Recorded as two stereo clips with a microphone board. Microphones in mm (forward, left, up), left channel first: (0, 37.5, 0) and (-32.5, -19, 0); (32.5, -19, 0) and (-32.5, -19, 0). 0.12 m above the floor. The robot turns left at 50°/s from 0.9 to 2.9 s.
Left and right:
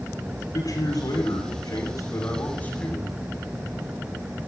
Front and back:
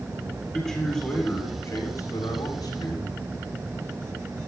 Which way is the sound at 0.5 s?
85° left.